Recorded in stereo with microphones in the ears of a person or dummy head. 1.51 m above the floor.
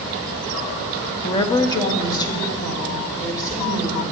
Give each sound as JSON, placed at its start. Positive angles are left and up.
{"t": 1.2, "sound": "a woman speaking", "side_deg": 25, "distance_m": 0.5}